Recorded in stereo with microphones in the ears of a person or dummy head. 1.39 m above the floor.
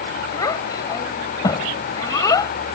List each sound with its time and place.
0.3 s a child speaking: 20° left (ahead or behind)